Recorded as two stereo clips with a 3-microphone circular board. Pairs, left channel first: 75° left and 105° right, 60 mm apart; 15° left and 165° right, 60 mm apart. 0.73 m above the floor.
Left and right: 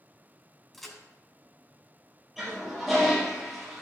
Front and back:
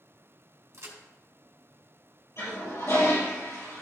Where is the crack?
160° left, 2.5 m.